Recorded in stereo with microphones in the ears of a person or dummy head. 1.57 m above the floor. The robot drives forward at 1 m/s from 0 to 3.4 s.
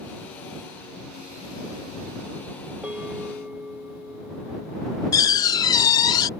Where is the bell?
Centre (ahead or behind).